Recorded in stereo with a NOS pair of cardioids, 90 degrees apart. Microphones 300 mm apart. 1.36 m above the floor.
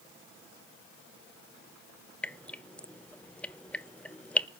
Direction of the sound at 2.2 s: 5° left.